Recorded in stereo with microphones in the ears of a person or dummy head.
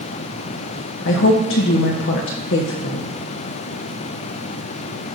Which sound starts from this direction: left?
A woman speaking, at 1.1 s.